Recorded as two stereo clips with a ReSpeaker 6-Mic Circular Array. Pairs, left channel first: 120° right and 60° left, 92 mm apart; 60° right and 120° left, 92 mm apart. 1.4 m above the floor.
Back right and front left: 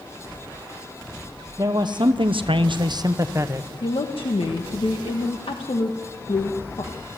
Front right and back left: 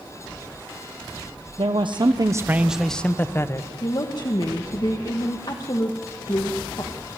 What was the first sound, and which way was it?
A man speaking, 105° left.